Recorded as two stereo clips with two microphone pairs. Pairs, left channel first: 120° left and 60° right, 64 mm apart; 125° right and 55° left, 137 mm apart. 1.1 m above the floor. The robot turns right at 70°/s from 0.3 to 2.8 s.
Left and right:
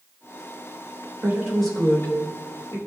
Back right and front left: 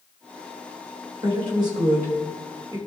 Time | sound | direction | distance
1.2 | a woman speaking | 5° left | 3.5 m